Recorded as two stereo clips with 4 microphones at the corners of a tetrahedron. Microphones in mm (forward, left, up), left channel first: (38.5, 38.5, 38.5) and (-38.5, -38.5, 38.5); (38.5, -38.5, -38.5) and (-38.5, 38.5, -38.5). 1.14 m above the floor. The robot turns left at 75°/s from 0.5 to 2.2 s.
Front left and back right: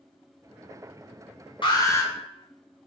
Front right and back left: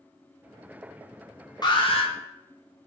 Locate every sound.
1.6 s an alarm: 5° left, 0.5 m; by 2.1 s 30° right, 0.5 m